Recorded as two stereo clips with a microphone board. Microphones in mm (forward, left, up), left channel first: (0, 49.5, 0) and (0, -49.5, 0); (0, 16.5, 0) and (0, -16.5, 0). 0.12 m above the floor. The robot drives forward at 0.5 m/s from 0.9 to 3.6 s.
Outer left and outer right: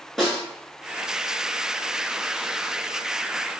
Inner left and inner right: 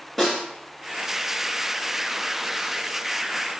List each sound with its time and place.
0.2 s a snare drum: centre (ahead or behind), 1.7 m